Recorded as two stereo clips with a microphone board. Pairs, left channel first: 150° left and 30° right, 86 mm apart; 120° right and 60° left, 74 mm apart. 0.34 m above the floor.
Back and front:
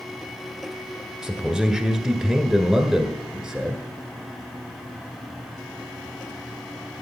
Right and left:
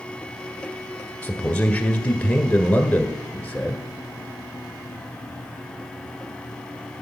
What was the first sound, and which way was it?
A man speaking, 100° right.